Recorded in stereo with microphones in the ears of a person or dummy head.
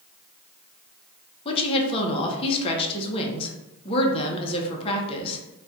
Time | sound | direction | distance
1.4 | a woman speaking | 30° left (ahead or behind) | 0.8 m